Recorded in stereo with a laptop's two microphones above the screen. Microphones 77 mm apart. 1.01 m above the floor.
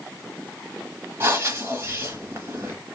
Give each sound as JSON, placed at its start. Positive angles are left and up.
{"t": 1.2, "sound": "breathing", "side_deg": -35, "distance_m": 1.0}